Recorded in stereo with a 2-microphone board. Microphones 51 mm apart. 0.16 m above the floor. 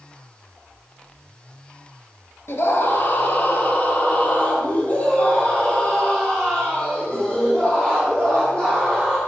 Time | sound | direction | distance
2.5 | a scream | 60° left (ahead or behind) | 2.5 m